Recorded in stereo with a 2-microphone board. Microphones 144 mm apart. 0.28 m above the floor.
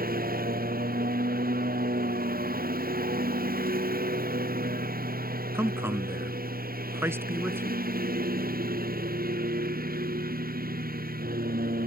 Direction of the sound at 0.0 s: 90° right.